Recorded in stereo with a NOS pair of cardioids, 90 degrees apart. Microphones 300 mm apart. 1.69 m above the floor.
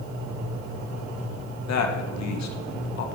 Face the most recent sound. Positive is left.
turn(degrees=65)